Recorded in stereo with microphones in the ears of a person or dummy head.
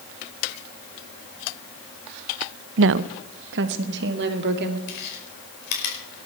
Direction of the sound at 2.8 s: 70° right (ahead or behind).